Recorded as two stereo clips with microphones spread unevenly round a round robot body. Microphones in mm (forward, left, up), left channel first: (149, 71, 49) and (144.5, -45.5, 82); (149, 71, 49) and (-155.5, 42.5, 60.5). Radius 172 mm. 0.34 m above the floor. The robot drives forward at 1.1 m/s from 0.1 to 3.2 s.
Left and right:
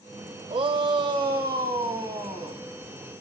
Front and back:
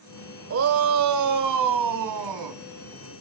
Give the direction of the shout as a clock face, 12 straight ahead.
5 o'clock.